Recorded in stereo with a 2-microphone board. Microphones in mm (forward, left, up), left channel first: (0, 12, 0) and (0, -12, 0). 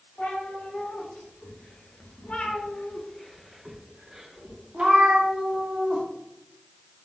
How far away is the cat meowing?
About 1.8 m.